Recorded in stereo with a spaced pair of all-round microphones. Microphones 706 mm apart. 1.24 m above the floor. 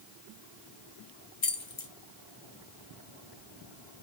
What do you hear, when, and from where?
1.4 s keys jangling: 40° left (ahead or behind), 0.9 m